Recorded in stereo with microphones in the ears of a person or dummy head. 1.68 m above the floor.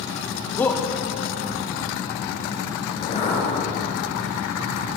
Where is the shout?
20° left (ahead or behind), 1.4 m.